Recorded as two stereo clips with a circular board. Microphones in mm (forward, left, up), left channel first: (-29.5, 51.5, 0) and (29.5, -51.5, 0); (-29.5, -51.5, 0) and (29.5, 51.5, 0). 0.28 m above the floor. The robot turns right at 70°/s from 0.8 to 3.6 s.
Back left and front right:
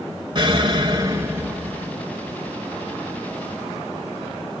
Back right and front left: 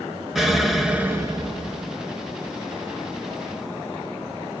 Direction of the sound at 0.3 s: 30° right.